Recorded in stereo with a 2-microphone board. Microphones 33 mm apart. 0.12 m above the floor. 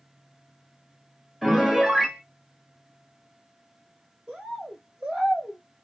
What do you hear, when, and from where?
1.4 s a piano: 5° right (ahead or behind), 0.9 m
4.3 s a bird: 20° right (ahead or behind), 1.8 m